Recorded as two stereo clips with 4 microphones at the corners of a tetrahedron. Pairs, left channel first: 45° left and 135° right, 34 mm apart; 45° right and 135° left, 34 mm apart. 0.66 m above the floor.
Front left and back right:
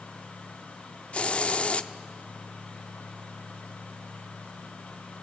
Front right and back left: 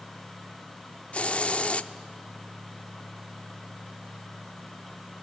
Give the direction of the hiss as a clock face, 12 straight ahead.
12 o'clock.